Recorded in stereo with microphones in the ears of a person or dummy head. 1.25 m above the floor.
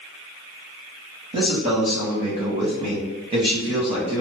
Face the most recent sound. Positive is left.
turn(degrees=-30)  # may be behind; listen again after turning